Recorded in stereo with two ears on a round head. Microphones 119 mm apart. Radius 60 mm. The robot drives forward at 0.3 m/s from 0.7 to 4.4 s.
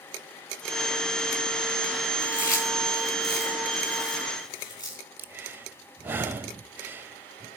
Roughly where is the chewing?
Left.